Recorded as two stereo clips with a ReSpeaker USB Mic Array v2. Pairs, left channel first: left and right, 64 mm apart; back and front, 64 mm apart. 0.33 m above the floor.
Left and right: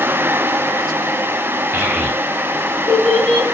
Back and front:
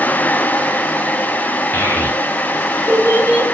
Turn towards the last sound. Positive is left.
turn(degrees=165)